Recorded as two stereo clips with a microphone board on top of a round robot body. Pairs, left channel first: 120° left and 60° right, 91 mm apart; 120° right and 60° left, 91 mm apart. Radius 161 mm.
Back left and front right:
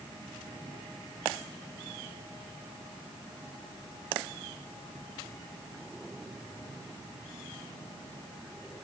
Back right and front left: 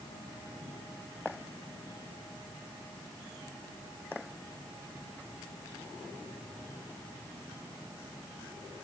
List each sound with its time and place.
Only background noise.